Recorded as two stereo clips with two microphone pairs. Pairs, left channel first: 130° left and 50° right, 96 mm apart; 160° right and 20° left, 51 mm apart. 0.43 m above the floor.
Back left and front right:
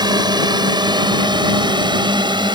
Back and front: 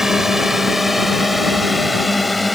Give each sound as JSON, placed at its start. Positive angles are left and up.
{"t": 0.0, "sound": "a drone", "azimuth_deg": -55}